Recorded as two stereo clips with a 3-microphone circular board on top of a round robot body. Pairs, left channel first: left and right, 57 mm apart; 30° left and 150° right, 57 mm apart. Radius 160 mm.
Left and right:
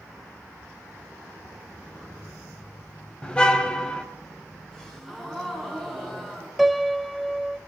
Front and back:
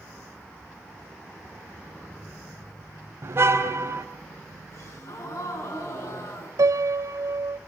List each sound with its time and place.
3.2 s a car horn: 165° left, 2 m
4.7 s a gasp: 10° left, 8.5 m
6.6 s a piano: 175° right, 0.9 m